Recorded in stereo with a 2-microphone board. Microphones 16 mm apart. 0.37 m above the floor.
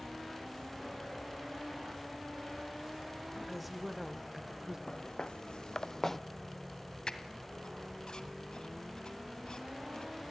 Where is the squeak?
50° left (ahead or behind), 1.8 m.